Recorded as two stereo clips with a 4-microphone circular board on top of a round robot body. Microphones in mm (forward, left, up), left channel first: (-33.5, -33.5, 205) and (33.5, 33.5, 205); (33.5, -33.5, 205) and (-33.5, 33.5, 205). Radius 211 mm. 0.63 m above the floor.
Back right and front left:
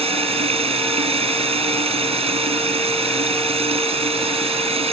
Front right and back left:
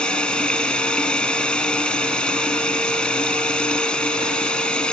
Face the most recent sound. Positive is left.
turn(degrees=35)